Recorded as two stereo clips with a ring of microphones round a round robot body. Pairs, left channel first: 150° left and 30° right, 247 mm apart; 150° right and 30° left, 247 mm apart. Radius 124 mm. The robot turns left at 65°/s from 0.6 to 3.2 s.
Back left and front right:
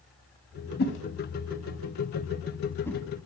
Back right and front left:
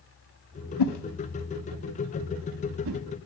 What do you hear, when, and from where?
0.8 s a whoosh: 155° right, 0.5 m; by 3.0 s 60° left, 0.5 m